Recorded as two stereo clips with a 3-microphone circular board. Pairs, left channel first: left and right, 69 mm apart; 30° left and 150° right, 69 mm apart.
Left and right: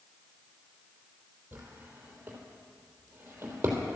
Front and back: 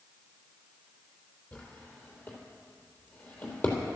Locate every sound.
1.5 s a drawer: 30° right, 3 m